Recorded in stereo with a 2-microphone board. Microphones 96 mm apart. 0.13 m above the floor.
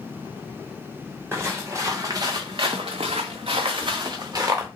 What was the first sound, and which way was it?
Footsteps, 25° right (ahead or behind).